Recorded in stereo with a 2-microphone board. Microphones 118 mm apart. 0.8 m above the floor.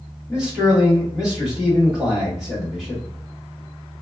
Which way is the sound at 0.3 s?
5° right (ahead or behind).